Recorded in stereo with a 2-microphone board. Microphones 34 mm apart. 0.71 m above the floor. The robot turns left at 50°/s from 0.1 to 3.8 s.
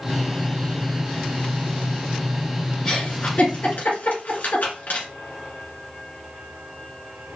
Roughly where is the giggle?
Centre.